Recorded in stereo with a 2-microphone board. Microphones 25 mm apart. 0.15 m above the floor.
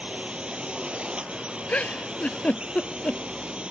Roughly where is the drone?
Right.